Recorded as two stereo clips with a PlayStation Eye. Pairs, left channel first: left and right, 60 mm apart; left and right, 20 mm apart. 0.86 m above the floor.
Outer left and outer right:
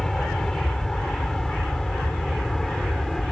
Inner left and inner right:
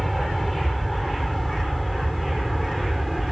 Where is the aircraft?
5° left (ahead or behind); by 3.3 s centre (ahead or behind).